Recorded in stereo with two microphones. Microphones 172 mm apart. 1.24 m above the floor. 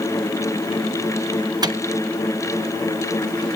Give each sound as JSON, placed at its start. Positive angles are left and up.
{"t": 1.6, "sound": "a microwave", "side_deg": -25, "distance_m": 0.9}